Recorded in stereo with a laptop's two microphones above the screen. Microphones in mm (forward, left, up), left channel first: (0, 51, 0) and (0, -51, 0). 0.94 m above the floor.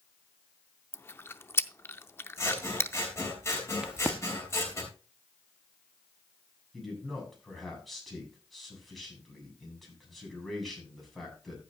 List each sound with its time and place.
0.9 s chewing: 25° left (ahead or behind), 0.5 m
2.4 s scissors: 30° left (ahead or behind), 3 m
3.8 s a crack: 10° right (ahead or behind), 1.2 m
6.7 s a man speaking: centre (ahead or behind), 7.5 m